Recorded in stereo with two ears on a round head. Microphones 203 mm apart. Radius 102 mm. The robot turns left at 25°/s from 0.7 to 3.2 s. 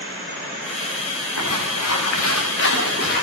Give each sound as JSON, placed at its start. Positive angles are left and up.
{"t": 1.4, "sound": "footsteps", "side_deg": 85, "distance_m": 7.0}